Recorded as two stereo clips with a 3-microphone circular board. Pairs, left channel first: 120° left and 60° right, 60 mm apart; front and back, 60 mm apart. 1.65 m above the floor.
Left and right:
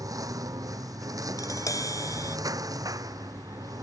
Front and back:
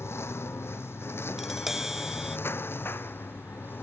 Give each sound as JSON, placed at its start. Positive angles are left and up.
{"t": 0.0, "sound": "a lawn mower", "azimuth_deg": -45}
{"t": 1.4, "sound": "tapping", "azimuth_deg": 95}